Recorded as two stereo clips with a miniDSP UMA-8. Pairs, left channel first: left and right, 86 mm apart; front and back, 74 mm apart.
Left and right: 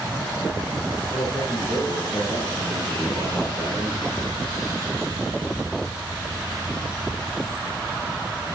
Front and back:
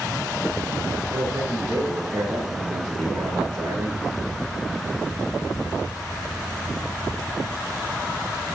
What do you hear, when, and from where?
1.1 s a man speaking: 155° left, 9.5 m